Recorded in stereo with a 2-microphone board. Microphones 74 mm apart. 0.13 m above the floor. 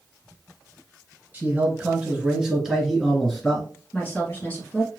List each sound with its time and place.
1.3 s a man speaking: 20° right (ahead or behind), 1.7 m; by 3.7 s 15° left (ahead or behind), 2 m
3.9 s a woman speaking: 20° left (ahead or behind), 1.8 m